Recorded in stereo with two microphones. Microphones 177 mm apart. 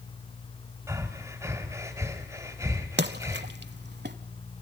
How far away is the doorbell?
I don't hear a doorbell.